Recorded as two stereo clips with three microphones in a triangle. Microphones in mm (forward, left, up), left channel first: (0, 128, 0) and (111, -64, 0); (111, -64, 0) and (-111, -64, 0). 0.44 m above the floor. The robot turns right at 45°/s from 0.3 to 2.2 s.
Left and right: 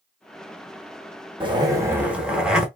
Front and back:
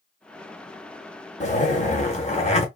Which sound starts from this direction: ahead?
A zipper, at 1.4 s.